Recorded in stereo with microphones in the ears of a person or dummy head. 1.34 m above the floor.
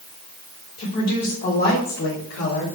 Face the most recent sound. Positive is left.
turn(degrees=75)  # may be behind; listen again after turning